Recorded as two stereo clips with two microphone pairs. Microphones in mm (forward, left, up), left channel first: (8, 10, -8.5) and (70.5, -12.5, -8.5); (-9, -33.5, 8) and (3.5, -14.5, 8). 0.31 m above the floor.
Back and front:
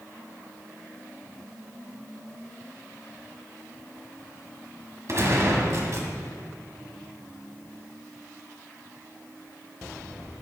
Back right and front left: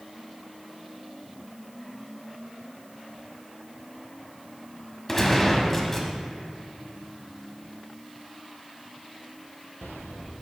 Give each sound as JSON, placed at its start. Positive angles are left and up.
{"t": 5.1, "sound": "a gunshot", "azimuth_deg": -50, "distance_m": 1.5}